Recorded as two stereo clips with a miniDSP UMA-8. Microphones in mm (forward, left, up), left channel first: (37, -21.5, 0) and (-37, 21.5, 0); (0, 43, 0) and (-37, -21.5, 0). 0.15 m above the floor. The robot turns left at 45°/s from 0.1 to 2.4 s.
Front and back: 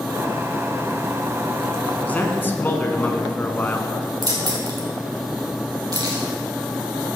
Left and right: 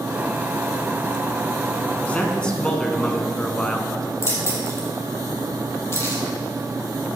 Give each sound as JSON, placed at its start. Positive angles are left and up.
{"t": 2.0, "sound": "a man speaking", "azimuth_deg": 15, "distance_m": 1.1}
{"t": 4.2, "sound": "keys jangling", "azimuth_deg": 110, "distance_m": 3.0}